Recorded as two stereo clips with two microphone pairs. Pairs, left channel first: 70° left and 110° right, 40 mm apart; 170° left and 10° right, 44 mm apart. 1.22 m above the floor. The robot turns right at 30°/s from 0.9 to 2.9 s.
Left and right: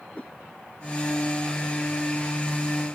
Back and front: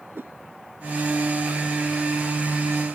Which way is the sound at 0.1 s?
15° left.